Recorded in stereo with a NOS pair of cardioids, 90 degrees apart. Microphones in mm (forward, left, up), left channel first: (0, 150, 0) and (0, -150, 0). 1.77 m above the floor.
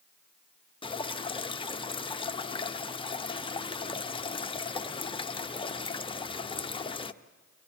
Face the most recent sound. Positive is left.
turn(degrees=20)